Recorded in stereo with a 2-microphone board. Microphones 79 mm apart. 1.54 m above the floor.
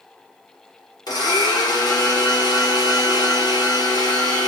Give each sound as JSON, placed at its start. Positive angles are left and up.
{"t": 1.1, "sound": "a blender", "side_deg": 55, "distance_m": 1.0}